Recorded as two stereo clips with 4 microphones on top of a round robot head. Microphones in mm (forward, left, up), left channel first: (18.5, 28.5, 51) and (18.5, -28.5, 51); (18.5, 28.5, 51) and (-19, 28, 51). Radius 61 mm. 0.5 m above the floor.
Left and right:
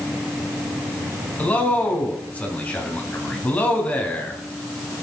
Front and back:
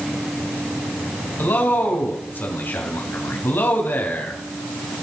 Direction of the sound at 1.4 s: 25° left.